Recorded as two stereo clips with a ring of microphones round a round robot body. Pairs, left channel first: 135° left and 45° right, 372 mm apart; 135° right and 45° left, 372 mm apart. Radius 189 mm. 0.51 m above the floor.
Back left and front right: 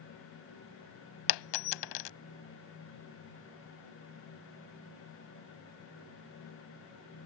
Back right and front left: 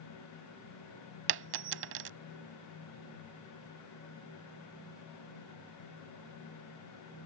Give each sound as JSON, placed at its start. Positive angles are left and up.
{"t": 1.3, "sound": "a dropped coin", "azimuth_deg": 105}